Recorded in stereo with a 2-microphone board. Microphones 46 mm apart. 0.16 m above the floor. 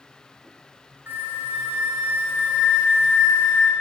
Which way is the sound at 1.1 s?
45° right (ahead or behind).